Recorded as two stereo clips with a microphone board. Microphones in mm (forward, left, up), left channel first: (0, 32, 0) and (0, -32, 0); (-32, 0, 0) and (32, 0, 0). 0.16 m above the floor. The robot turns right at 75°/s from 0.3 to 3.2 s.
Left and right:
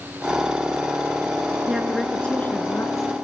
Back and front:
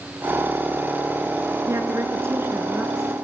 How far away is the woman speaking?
About 2 m.